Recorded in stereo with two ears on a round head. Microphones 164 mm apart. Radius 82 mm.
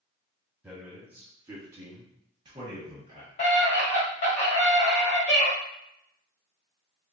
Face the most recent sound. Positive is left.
turn(degrees=40)  # may be behind; listen again after turning